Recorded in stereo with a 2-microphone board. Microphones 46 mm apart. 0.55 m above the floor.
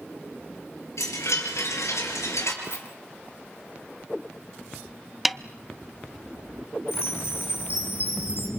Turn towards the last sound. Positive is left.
turn(degrees=55)  # may be behind; listen again after turning